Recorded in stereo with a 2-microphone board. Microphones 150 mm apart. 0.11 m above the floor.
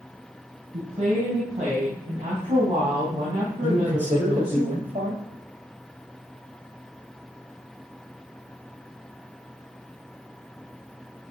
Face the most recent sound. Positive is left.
turn(degrees=-45)  # may be behind; listen again after turning